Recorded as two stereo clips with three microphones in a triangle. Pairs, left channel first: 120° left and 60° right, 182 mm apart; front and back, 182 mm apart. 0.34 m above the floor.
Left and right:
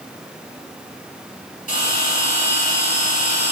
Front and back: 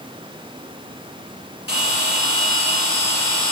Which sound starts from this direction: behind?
A bell, at 1.7 s.